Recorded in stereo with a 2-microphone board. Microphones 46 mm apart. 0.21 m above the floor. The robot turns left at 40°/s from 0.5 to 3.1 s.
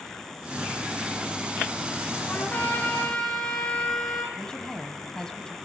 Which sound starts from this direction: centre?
A woman speaking, at 4.3 s.